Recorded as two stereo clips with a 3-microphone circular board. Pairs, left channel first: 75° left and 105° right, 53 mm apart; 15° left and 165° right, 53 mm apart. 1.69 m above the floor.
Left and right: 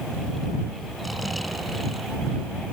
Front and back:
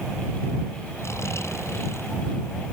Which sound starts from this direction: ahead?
Snoring, at 1.0 s.